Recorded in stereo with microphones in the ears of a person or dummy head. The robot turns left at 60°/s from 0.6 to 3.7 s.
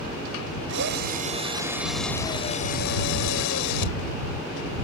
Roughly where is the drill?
Right.